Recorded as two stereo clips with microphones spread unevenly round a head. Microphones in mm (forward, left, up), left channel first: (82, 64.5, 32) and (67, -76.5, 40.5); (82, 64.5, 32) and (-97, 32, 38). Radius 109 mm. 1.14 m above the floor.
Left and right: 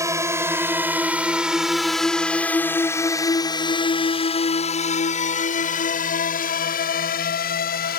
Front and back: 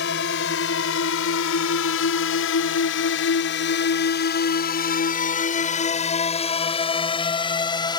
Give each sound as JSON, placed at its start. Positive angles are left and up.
{"t": 0.0, "sound": "a drone", "azimuth_deg": -30}